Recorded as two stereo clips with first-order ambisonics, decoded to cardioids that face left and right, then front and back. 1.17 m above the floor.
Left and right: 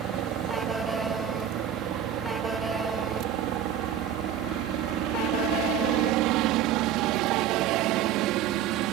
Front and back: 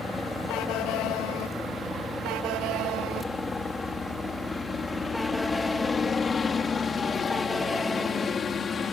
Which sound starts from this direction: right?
A helicopter, at 0.0 s.